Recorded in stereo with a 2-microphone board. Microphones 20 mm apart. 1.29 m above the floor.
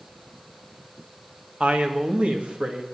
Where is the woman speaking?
80° right, 1.7 m.